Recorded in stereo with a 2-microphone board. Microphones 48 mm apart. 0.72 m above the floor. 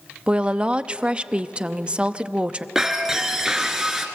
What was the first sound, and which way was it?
A woman speaking, 25° right (ahead or behind).